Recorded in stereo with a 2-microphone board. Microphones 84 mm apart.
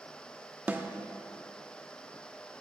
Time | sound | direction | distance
0.7 | a snare drum | 20° right (ahead or behind) | 0.5 m